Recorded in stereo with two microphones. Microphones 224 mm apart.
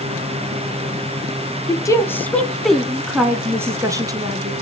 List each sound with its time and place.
1.7 s a woman speaking: 15° left (ahead or behind), 1.4 m; by 4.5 s 20° right (ahead or behind), 2.5 m